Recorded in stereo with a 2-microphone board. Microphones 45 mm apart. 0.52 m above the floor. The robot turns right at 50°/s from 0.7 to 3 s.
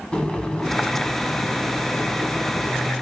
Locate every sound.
0.1 s boiling: 25° left, 1.2 m; by 2.9 s 135° left, 1.2 m